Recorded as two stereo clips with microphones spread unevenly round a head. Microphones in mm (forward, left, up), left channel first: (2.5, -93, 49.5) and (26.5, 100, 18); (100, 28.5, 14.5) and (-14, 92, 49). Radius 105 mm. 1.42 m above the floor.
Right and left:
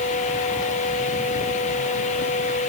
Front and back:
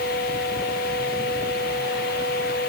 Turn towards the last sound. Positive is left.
No sound to turn to.